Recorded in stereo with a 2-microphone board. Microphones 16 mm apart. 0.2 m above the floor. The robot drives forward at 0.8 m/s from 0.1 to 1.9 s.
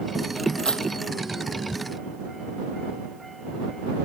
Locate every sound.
0.6 s keys jangling: 75° left (ahead or behind)